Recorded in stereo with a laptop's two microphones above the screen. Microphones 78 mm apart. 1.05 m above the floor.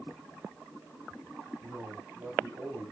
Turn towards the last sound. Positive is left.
turn(degrees=-35)  # may be behind; listen again after turning